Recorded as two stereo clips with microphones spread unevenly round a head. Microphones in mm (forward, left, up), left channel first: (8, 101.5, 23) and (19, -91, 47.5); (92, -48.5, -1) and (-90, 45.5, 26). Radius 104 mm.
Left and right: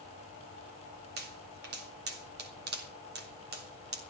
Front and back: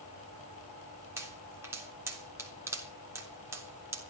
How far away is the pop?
About 3.5 m.